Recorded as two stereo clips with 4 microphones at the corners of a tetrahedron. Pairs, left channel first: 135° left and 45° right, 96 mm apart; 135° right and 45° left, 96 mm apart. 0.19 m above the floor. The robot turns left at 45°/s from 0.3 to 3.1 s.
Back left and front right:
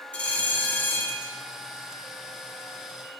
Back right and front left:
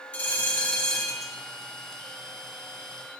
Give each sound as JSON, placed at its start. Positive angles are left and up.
{"t": 0.1, "sound": "a bell", "azimuth_deg": 180, "distance_m": 0.7}